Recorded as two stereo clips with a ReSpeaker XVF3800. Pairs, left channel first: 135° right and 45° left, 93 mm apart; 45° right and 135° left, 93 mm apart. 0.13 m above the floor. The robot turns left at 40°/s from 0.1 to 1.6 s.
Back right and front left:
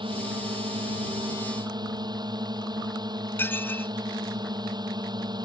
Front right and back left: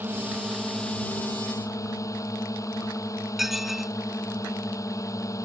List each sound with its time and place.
0.0 s a drone: 65° left; by 5.5 s 5° left
3.4 s dishes clattering: 140° right